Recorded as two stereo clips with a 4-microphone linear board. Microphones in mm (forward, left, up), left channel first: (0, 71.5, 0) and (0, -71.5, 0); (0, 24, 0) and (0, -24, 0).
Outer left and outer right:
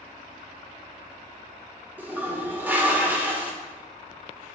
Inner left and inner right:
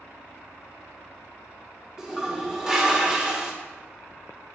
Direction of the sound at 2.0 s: 15° right (ahead or behind).